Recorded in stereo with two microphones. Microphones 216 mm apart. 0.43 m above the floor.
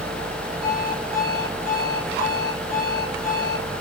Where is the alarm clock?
45° right (ahead or behind), 6.5 m.